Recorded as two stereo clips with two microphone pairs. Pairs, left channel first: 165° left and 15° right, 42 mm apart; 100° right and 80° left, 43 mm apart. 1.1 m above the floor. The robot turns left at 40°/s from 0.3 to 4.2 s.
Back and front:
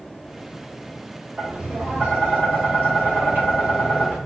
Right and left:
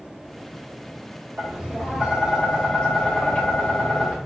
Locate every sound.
1.4 s tapping: 35° left, 3 m; by 4.2 s 75° right, 3 m